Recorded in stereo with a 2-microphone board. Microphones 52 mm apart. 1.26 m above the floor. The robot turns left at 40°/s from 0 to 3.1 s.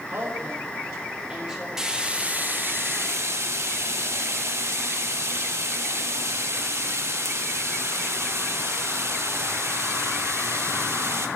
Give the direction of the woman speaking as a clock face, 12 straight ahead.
4 o'clock.